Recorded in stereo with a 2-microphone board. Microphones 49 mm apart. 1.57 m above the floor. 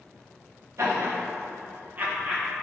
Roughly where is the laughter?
Right.